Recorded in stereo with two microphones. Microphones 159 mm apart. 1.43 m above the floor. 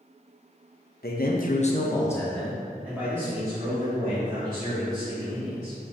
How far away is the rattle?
I don't hear a rattle.